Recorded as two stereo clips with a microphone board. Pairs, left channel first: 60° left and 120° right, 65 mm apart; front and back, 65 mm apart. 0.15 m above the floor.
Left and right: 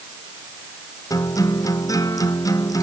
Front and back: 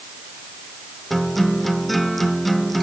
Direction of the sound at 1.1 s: 90° left.